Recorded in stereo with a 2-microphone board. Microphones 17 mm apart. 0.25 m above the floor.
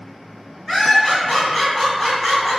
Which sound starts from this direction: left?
Laughter, at 0.7 s.